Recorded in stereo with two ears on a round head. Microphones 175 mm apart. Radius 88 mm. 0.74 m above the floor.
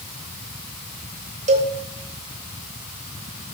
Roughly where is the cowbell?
Right.